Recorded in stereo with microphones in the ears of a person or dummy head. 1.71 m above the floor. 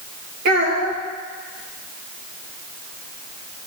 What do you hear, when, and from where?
0.5 s a child speaking: 50° right (ahead or behind), 1.5 m